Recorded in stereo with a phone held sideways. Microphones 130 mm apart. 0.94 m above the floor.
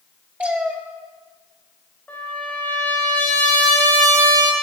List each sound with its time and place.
0.4 s a cat meowing: 10° right (ahead or behind), 1.3 m
2.1 s a trumpet: 10° left (ahead or behind), 3 m